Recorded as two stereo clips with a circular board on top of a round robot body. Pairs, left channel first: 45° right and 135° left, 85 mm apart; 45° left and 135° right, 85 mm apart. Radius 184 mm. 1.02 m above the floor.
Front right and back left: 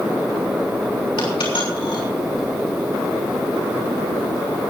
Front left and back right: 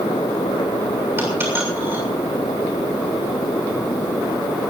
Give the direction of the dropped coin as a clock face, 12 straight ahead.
2 o'clock.